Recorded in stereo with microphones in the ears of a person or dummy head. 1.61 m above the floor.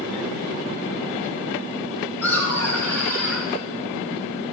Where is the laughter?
10° left (ahead or behind), 4.5 m.